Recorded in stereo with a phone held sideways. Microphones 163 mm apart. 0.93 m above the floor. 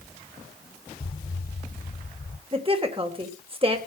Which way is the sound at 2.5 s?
35° right (ahead or behind).